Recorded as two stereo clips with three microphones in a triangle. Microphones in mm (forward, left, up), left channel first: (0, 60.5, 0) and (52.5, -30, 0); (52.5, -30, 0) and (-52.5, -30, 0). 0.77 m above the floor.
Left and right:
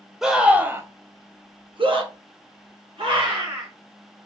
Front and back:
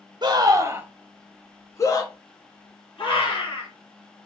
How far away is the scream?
About 0.8 m.